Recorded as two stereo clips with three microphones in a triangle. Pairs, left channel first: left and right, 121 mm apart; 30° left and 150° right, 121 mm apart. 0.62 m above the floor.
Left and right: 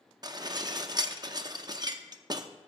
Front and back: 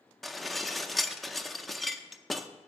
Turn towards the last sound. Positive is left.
turn(degrees=-60)